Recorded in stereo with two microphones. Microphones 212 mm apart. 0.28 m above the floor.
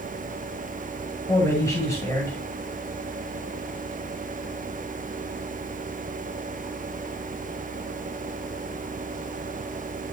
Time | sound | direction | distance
1.3 | a man speaking | 15° left (ahead or behind) | 2 m